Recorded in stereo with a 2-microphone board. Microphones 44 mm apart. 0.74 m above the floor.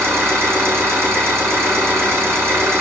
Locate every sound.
0.0 s an engine running: 80° right, 2.5 m